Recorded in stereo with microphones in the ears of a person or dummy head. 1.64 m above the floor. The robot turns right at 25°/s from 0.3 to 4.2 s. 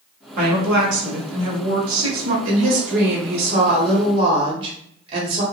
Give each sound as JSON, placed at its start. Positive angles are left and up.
{"t": 0.4, "sound": "a woman speaking", "azimuth_deg": -125, "distance_m": 1.0}
{"t": 2.5, "sound": "a woman speaking", "azimuth_deg": -75, "distance_m": 1.2}